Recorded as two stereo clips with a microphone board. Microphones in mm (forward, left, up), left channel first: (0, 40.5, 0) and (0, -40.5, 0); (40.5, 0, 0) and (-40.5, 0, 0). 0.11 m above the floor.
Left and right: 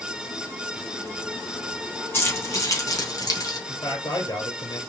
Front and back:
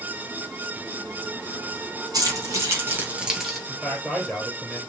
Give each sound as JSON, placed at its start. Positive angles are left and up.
{"t": 2.1, "sound": "keys jangling", "azimuth_deg": 145, "distance_m": 2.5}
{"t": 3.7, "sound": "a man speaking", "azimuth_deg": 95, "distance_m": 3.0}